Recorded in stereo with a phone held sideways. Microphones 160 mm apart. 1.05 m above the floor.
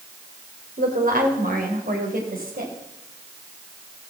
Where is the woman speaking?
65° right (ahead or behind), 3.5 m.